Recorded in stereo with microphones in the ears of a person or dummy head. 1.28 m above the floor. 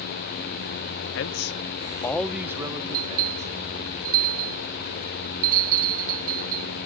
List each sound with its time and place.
1.1 s a man speaking: 65° left (ahead or behind), 0.8 m; by 3.9 s 40° right (ahead or behind), 1.9 m
2.9 s a bell: 45° right (ahead or behind), 0.7 m